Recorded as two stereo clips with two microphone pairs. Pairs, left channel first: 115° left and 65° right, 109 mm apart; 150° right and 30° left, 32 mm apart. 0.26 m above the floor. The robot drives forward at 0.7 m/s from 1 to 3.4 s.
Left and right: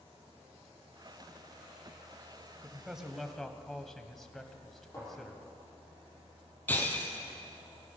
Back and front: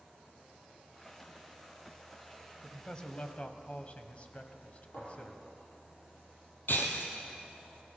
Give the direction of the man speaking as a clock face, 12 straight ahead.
4 o'clock.